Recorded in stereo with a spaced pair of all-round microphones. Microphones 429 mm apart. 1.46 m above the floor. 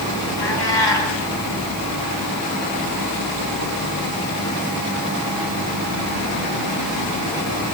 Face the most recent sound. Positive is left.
turn(degrees=70)  # may be behind; listen again after turning